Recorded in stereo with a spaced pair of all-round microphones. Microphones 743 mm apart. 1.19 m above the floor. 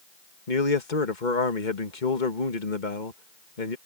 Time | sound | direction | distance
0.5 | a man speaking | 80° left | ?